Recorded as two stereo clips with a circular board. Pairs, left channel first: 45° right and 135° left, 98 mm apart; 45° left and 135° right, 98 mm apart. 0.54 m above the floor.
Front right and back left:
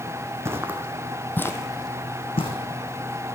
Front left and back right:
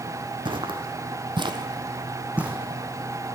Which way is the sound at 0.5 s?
165° right.